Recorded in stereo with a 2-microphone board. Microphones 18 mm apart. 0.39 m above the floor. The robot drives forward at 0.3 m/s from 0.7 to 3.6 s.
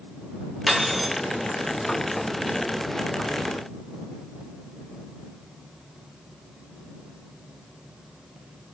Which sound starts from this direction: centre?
Cutlery clinking, at 0.7 s.